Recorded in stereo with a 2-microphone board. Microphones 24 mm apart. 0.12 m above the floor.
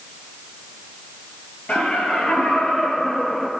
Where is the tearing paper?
No tearing paper in this recording.